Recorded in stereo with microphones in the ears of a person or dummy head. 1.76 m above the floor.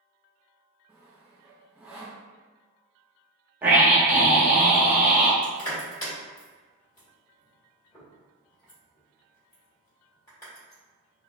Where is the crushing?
15° left (ahead or behind), 1.5 m.